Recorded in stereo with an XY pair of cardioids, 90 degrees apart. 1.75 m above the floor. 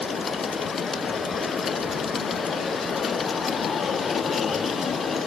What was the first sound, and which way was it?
Only background noise.